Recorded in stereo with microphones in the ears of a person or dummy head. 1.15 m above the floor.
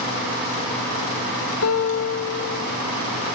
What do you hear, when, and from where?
1.6 s a guitar: 85° left, 6 m